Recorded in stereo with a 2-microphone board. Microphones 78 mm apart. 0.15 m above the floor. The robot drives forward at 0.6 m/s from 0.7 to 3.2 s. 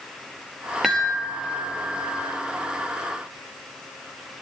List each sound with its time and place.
0.8 s a chime: centre (ahead or behind), 5 m